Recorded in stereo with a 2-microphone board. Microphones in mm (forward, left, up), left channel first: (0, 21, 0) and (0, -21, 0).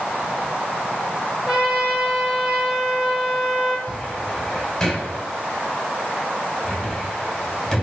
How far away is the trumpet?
About 1.6 m.